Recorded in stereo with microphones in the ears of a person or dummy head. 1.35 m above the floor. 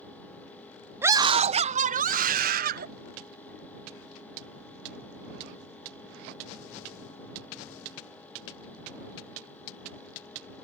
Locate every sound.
1.0 s a scream: 15° right (ahead or behind); by 2.9 s 55° right (ahead or behind)